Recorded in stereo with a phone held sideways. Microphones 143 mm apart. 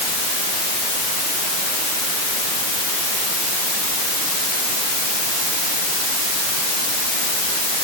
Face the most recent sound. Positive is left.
No sound to turn to.